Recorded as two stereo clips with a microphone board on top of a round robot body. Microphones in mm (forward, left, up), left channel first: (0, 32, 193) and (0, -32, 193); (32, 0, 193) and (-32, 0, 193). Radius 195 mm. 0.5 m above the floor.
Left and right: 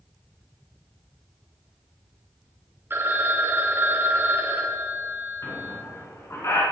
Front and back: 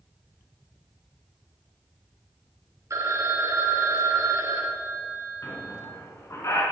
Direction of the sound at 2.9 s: 145° right.